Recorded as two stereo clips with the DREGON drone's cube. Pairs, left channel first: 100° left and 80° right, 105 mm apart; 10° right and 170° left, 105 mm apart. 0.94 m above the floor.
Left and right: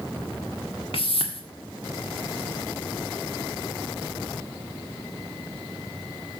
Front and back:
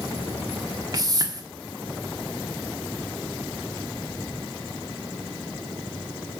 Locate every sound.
0.9 s a whoosh: 120° left, 1.5 m